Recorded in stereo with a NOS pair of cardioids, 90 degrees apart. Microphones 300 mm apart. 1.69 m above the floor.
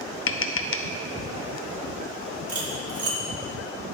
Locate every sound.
0.3 s tapping: 45° left, 0.8 m
2.5 s cutlery clinking: 55° right, 3 m